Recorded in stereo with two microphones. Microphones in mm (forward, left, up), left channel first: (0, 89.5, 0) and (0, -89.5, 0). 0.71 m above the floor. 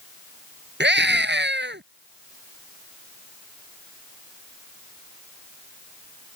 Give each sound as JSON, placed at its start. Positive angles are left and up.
{"t": 0.8, "sound": "a scream", "side_deg": -85}